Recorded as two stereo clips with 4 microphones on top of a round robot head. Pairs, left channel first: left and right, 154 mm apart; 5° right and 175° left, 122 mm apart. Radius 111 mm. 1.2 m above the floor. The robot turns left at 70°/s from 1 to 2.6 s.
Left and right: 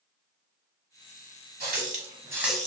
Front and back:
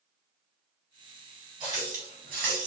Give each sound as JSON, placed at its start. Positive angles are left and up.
{"t": 1.6, "sound": "a running tap", "azimuth_deg": -115, "distance_m": 1.0}